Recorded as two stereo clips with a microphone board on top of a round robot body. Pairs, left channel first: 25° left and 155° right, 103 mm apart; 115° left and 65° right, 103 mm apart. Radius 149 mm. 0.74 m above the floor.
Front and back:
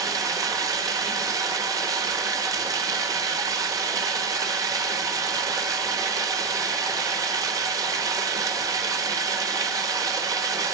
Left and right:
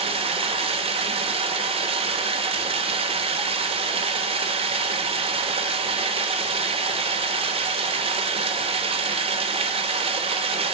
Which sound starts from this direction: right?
Running water, at 0.0 s.